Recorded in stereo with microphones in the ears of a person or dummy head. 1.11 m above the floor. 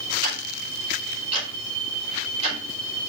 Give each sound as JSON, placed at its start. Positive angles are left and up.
{"t": 0.2, "sound": "ticking", "side_deg": -35, "distance_m": 4.5}